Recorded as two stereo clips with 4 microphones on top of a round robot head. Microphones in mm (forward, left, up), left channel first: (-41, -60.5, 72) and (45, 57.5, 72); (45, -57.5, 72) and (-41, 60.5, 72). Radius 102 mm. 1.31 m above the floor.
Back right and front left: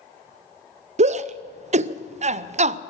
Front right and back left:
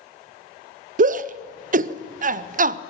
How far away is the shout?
About 0.6 m.